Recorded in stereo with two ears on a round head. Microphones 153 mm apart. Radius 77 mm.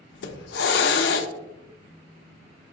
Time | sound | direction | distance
0.1 | a hiss | 70° left (ahead or behind) | 0.5 m